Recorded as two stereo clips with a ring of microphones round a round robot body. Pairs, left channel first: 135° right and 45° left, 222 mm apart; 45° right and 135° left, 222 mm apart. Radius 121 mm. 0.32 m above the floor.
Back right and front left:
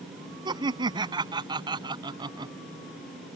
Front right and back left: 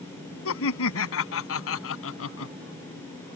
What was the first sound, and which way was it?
Laughter, 25° right.